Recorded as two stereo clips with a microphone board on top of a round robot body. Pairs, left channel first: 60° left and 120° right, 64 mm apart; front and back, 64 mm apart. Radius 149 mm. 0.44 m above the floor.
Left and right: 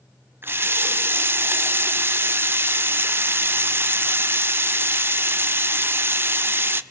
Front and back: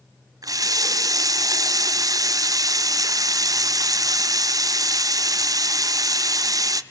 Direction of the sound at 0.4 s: 170° right.